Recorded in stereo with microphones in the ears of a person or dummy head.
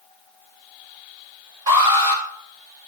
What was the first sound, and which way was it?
An alarm, 25° right (ahead or behind).